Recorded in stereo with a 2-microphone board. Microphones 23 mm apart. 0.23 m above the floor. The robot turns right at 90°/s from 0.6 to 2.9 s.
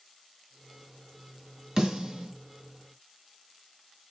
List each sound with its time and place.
1.8 s a snare drum: 30° right (ahead or behind), 1.4 m